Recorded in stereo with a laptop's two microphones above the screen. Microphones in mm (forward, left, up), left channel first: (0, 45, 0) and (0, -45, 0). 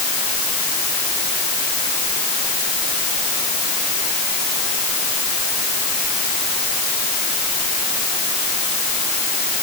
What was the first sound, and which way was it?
Only background noise.